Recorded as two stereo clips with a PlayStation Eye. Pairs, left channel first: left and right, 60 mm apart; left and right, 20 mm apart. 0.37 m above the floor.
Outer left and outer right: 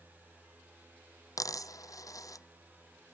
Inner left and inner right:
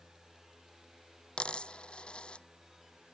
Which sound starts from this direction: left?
A dropped coin, at 1.4 s.